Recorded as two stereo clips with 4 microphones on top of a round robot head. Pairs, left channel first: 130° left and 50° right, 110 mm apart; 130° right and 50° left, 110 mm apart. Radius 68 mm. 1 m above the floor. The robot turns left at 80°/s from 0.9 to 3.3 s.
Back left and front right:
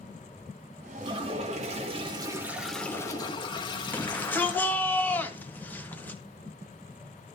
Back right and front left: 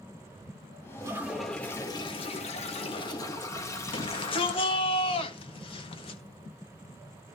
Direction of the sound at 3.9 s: 160° right.